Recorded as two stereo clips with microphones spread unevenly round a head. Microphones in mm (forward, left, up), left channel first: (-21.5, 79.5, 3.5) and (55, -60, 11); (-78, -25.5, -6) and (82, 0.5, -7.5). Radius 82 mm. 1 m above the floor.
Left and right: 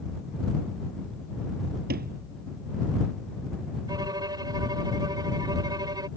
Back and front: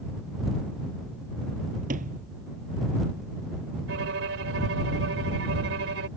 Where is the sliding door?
30° right.